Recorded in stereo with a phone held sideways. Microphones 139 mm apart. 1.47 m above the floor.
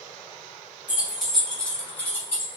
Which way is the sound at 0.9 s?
10° right (ahead or behind).